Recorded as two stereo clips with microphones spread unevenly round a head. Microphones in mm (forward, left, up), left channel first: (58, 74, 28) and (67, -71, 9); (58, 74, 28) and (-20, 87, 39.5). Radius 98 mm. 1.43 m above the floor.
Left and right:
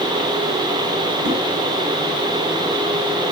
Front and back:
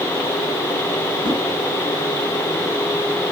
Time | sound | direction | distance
1.2 | a whoosh | 65° right | 2.5 m